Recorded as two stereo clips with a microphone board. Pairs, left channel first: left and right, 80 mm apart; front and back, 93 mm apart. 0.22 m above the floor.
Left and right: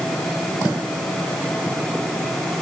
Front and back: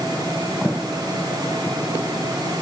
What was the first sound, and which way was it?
Only background noise.